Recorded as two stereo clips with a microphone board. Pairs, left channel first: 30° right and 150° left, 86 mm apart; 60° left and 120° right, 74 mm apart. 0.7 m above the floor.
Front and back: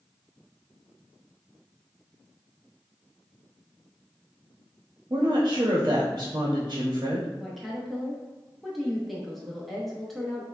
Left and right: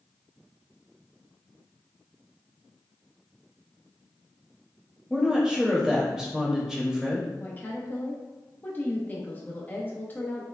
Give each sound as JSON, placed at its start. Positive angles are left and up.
{"t": 5.1, "sound": "a woman speaking", "azimuth_deg": 150, "distance_m": 0.8}
{"t": 7.4, "sound": "a woman speaking", "azimuth_deg": 60, "distance_m": 0.7}